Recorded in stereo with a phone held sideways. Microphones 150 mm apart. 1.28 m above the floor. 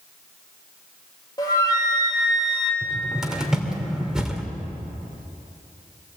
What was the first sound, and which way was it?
A flute, 25° left (ahead or behind).